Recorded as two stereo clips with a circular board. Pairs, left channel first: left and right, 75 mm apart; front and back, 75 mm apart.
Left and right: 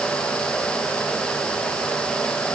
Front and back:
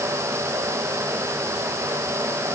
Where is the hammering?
No hammering in this recording.